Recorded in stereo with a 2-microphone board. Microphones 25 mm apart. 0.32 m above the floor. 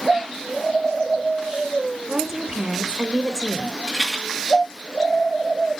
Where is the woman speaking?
20° right (ahead or behind), 0.9 m.